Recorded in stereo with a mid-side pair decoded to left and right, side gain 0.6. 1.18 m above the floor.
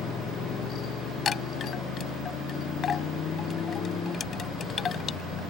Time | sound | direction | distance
0.0 | a motorcycle | 40° left | ?
1.2 | a chime | 40° left | ?